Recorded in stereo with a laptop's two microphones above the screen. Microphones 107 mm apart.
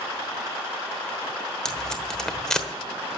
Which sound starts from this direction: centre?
Tape being pulled, at 1.6 s.